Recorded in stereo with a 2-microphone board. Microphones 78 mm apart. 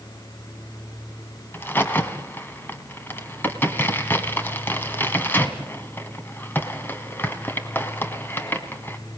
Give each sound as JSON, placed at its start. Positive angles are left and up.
{"t": 1.5, "sound": "a crack", "side_deg": 25, "distance_m": 1.6}